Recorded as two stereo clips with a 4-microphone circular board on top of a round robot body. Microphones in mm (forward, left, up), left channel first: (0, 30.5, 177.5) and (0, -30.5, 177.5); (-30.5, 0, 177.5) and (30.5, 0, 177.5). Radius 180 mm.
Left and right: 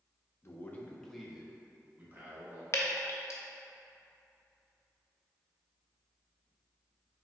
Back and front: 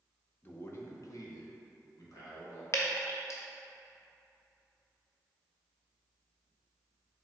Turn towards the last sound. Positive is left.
turn(degrees=135)